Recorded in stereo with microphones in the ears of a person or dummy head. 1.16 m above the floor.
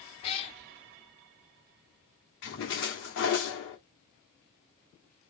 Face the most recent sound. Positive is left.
turn(degrees=65)  # may be behind; listen again after turning